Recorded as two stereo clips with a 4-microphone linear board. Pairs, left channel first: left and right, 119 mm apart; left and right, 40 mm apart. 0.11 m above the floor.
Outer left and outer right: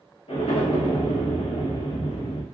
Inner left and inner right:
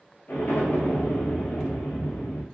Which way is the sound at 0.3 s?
55° left (ahead or behind).